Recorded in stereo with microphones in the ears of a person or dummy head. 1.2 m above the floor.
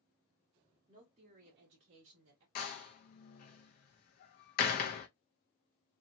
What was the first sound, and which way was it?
A woman speaking, 15° right (ahead or behind).